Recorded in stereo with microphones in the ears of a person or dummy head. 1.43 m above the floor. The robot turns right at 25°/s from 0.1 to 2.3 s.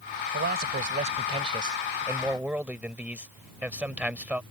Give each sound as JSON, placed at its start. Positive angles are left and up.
{"t": 0.3, "sound": "a man speaking", "azimuth_deg": -60}